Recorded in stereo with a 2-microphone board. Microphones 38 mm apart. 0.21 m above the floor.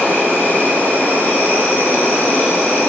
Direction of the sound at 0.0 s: 55° left (ahead or behind).